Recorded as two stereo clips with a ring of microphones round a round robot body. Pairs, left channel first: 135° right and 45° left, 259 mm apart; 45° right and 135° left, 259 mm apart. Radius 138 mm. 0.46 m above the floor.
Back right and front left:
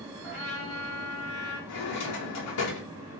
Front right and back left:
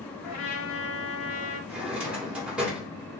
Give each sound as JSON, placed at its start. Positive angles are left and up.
{"t": 0.2, "sound": "a trumpet", "azimuth_deg": -70, "distance_m": 1.6}
{"t": 1.7, "sound": "a drawer", "azimuth_deg": -140, "distance_m": 1.0}